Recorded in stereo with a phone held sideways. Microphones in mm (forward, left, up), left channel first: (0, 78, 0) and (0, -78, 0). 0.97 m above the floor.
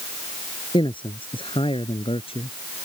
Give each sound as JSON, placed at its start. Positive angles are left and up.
{"t": 0.7, "sound": "a man speaking", "side_deg": 30}